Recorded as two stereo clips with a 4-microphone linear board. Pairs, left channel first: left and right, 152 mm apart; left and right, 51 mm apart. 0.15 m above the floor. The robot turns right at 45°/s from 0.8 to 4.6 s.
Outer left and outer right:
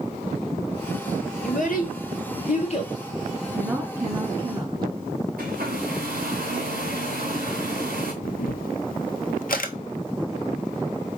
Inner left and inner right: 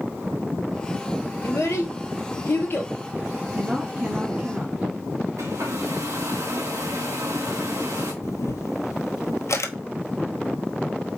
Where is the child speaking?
60° left (ahead or behind), 1.7 m; by 2.9 s 40° left (ahead or behind), 1.7 m.